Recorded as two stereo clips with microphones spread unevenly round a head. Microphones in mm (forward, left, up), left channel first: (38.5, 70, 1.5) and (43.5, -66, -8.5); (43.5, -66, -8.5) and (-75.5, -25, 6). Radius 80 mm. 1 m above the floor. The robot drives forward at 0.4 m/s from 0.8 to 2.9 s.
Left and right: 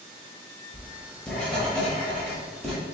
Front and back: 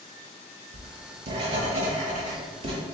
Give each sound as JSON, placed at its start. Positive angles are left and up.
{"t": 0.7, "sound": "writing", "azimuth_deg": 170, "distance_m": 0.9}